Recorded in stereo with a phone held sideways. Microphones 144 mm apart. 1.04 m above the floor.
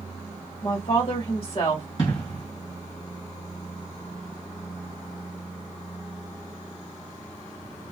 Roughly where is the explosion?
Left.